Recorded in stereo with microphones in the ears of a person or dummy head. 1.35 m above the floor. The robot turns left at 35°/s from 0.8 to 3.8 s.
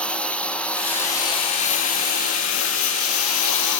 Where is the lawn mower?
10° left (ahead or behind); by 3.8 s 65° left (ahead or behind).